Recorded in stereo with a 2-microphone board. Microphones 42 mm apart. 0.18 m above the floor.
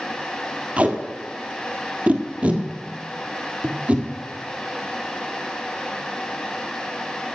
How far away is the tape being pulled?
About 1.6 m.